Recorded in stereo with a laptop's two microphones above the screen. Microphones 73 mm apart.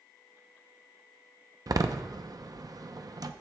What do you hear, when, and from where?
1.7 s a door slam: 60° right (ahead or behind), 0.6 m